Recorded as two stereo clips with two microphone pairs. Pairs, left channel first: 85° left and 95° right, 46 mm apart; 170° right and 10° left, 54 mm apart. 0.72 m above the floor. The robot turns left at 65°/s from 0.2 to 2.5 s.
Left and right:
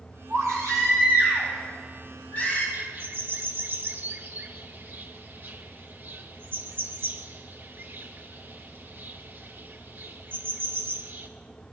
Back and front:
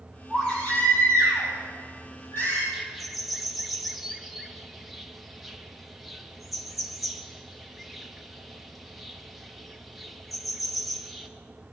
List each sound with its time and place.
0.3 s a baby crying: 85° right, 6.5 m; by 2.6 s 135° left, 6.5 m
2.7 s a bird: 80° right, 1.1 m